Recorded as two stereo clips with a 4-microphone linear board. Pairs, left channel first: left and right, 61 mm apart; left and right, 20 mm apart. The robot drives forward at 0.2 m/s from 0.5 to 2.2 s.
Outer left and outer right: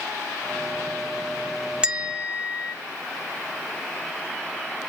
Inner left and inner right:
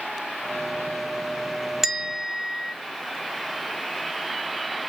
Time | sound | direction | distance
1.8 | a bell | 15° right (ahead or behind) | 0.5 m